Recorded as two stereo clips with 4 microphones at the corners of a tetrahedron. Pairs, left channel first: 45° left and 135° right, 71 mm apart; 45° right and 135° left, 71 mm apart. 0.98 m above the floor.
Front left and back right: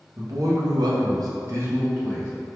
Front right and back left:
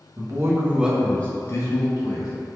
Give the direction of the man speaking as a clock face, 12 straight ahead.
6 o'clock.